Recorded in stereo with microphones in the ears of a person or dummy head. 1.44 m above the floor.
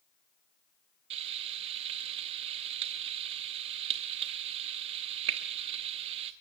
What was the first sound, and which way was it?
Frying, 20° right (ahead or behind).